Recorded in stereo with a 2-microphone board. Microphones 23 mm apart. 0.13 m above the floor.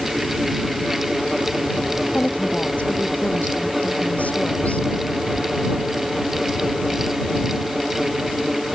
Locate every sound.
2.1 s a woman speaking: 75° left (ahead or behind)